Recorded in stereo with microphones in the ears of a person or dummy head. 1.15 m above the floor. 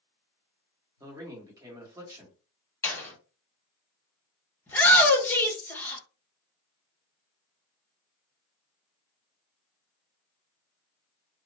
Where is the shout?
10° left (ahead or behind), 1.0 m.